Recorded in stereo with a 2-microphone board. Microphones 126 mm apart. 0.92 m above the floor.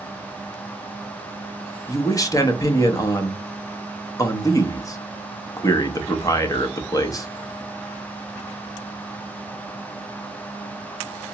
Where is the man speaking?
30° left (ahead or behind), 0.6 m.